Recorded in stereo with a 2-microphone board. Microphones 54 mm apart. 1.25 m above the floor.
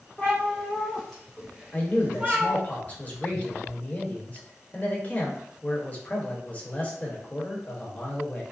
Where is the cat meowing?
25° left (ahead or behind), 1.1 m; by 2.6 s 30° right (ahead or behind), 1.4 m.